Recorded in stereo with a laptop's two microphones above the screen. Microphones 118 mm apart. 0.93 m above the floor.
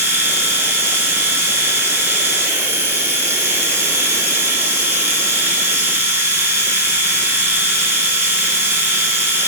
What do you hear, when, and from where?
0.0 s a machine running: 20° right (ahead or behind), 4 m